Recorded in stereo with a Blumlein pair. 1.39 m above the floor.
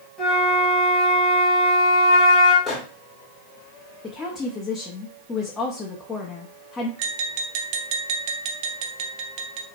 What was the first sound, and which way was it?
A flute, 15° left.